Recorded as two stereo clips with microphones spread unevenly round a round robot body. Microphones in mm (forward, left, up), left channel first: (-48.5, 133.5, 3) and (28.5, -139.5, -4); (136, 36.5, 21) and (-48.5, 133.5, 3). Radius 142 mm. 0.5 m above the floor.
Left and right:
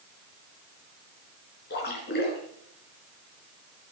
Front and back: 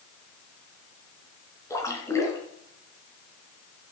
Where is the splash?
50° left, 3.5 m.